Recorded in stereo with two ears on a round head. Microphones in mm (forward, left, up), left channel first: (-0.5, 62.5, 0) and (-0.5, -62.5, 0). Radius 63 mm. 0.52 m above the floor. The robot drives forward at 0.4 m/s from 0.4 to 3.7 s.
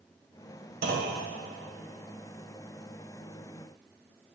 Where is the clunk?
65° right (ahead or behind), 1.6 m.